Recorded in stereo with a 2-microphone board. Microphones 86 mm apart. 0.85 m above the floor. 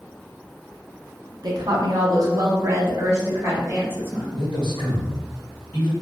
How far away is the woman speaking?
About 0.6 m.